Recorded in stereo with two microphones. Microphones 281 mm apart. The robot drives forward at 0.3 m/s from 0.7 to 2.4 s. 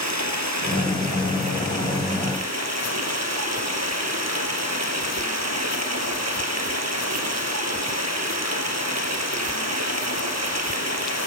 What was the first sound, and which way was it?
Running water, 75° right (ahead or behind).